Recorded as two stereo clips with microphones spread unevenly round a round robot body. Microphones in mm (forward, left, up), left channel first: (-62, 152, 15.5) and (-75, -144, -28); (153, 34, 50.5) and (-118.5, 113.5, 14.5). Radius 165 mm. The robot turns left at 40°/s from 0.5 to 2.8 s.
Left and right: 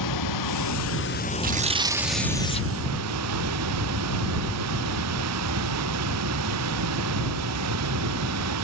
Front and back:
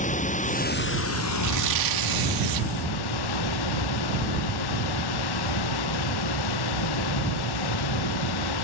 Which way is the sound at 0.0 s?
50° left.